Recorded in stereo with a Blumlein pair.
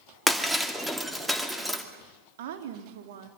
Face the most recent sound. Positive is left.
turn(degrees=-55)